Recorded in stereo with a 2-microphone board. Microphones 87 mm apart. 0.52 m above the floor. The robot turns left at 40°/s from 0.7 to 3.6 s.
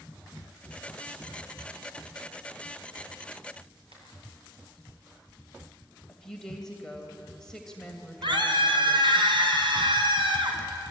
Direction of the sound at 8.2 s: 65° right (ahead or behind).